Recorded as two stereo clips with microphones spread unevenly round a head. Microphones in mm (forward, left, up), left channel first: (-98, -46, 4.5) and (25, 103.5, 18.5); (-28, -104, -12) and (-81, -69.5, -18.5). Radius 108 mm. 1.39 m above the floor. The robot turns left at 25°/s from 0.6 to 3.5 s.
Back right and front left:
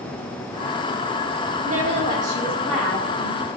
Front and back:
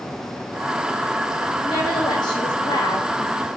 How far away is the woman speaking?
About 2.0 m.